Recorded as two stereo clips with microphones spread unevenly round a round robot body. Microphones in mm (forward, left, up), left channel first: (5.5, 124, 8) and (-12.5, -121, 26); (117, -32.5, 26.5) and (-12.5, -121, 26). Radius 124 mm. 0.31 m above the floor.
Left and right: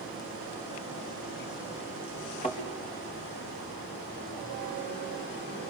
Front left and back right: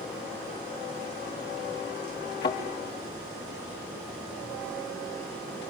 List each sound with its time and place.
2.4 s a thud: 20° left, 4.5 m